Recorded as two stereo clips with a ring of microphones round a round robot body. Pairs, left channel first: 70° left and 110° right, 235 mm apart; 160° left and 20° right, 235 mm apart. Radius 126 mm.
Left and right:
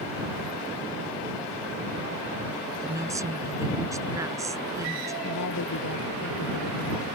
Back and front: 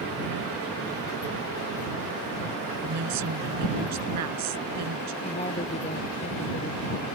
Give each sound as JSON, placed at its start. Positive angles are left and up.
{"t": 2.8, "sound": "a woman speaking", "azimuth_deg": -35}
{"t": 5.2, "sound": "a woman speaking", "azimuth_deg": 90}